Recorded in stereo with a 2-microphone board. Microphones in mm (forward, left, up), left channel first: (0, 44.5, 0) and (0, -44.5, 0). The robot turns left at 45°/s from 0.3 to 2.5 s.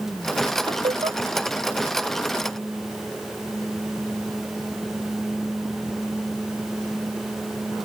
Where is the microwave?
No microwave in this recording.